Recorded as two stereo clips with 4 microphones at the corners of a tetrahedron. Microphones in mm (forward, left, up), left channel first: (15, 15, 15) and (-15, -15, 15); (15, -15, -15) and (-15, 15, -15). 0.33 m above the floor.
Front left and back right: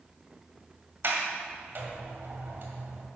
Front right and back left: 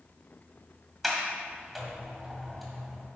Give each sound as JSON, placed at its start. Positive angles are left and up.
{"t": 1.0, "sound": "a sliding door", "azimuth_deg": -140, "distance_m": 1.9}